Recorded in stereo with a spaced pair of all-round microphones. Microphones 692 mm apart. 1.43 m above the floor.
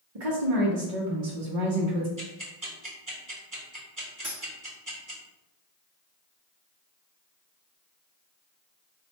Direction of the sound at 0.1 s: 60° right (ahead or behind).